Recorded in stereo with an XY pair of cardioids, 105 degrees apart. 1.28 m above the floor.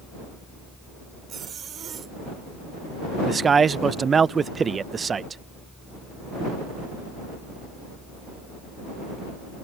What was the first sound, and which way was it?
A fan, straight ahead.